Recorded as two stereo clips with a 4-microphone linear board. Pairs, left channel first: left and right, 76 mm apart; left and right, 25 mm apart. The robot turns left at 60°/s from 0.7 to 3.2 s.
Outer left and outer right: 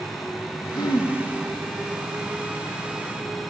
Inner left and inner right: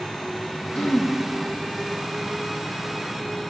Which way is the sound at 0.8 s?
60° left (ahead or behind).